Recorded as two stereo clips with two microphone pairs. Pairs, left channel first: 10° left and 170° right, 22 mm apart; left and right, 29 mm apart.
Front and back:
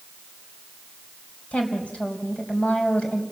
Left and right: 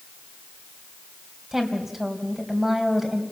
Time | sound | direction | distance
1.5 | a woman speaking | 5° right | 3.5 m